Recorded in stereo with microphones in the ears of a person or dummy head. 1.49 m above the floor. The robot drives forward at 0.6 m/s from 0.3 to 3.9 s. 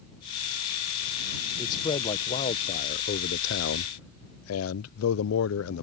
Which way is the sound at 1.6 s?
25° left (ahead or behind).